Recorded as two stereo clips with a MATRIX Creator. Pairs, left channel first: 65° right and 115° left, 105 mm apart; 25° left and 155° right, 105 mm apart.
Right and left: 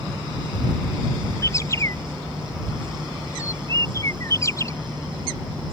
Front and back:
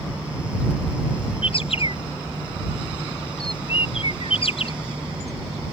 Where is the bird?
5° right.